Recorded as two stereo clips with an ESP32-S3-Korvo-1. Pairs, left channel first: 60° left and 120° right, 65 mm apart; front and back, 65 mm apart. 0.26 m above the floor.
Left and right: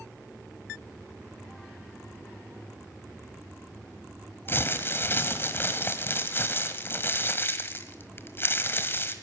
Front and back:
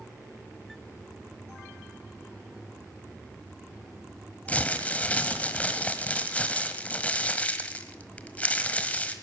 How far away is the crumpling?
About 1.3 m.